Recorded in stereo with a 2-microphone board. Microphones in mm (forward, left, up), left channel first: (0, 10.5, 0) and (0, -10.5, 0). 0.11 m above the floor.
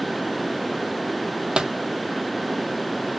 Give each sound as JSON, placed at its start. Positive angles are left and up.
{"t": 1.6, "sound": "a pop", "side_deg": -60, "distance_m": 0.8}